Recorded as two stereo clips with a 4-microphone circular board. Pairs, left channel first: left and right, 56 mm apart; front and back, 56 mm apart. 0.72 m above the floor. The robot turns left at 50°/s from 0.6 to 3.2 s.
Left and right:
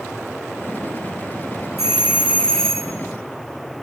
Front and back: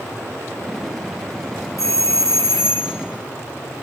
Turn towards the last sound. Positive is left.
turn(degrees=-25)